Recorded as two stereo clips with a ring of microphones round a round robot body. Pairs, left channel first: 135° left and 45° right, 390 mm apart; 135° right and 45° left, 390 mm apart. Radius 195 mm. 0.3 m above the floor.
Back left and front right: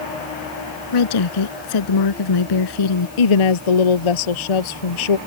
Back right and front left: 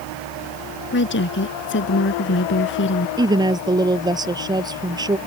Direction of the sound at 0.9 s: 165° left.